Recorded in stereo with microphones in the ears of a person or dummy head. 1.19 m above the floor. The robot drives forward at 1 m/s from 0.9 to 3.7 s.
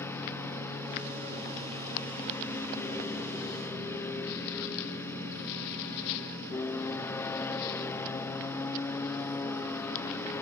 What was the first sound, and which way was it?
A lawn mower, 15° left (ahead or behind).